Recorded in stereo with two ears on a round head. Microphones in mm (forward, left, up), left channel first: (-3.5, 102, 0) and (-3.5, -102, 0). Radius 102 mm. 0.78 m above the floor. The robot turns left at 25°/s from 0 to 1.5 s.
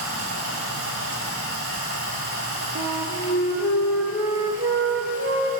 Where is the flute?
10° right (ahead or behind), 2 m.